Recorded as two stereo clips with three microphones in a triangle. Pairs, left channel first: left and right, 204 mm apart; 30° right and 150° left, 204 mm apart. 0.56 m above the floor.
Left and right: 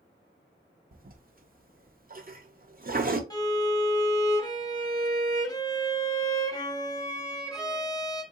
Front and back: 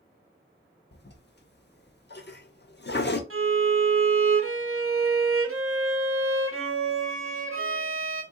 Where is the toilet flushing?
50° right, 0.6 m.